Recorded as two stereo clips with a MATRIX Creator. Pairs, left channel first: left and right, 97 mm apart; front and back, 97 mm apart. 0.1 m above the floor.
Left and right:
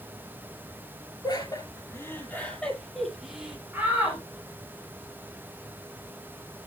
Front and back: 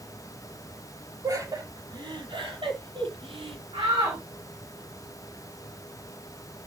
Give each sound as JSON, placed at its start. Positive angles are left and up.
{"t": 1.2, "sound": "laughter", "azimuth_deg": 130, "distance_m": 3.5}
{"t": 3.7, "sound": "a shout", "azimuth_deg": -165, "distance_m": 6.0}